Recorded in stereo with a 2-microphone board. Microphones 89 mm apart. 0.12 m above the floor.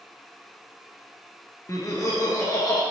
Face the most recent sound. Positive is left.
turn(degrees=35)  # may be behind; listen again after turning